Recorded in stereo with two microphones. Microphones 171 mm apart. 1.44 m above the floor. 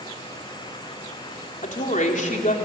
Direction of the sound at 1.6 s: 45° left (ahead or behind).